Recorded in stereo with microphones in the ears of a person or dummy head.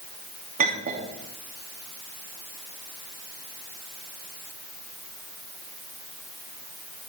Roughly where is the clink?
Right.